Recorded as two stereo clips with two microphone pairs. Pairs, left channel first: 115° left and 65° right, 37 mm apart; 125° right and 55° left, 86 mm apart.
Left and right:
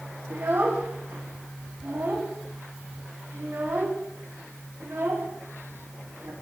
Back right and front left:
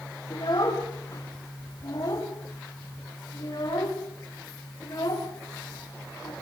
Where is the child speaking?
85° right, 9 m.